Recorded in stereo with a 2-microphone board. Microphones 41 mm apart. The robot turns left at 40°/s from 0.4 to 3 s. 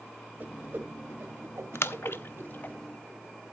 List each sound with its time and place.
0.4 s a whoosh: 40° right (ahead or behind), 2.0 m; by 2.8 s 45° right (ahead or behind), 2.0 m
1.8 s a splash: 70° left (ahead or behind), 0.6 m; by 2.8 s 40° left (ahead or behind), 0.6 m